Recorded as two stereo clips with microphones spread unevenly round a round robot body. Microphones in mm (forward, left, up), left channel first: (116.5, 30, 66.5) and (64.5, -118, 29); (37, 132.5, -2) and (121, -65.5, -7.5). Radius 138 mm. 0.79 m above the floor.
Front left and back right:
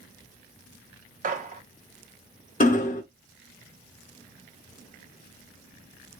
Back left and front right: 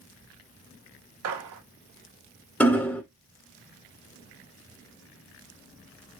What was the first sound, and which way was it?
A gunshot, 75° right.